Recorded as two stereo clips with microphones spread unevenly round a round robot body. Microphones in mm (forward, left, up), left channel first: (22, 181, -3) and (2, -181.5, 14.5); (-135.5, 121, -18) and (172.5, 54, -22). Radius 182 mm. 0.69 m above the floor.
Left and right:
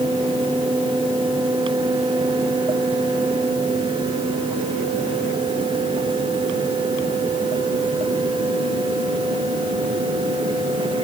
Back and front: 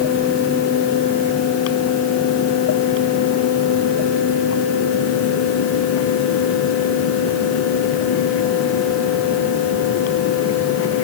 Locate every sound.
Only background noise.